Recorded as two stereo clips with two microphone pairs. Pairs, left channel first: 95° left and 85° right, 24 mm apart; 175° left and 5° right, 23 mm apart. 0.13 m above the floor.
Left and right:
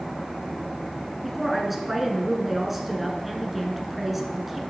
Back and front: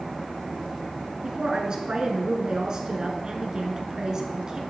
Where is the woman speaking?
10° right, 1.2 m.